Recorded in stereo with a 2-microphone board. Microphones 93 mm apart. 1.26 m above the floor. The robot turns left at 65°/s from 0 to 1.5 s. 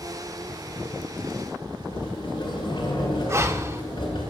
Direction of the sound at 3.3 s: 30° right (ahead or behind).